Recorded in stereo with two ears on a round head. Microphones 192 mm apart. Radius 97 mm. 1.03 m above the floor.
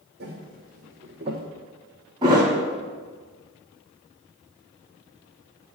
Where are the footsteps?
50° right (ahead or behind), 2 m; by 1.4 s 20° right (ahead or behind), 1.6 m.